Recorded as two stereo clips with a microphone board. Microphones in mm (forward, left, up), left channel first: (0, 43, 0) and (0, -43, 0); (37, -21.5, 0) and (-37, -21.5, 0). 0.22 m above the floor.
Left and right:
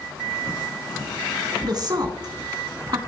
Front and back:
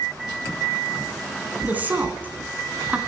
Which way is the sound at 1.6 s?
115° right.